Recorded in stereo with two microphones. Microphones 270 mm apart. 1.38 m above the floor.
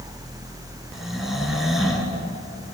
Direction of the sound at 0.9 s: Centre (ahead or behind).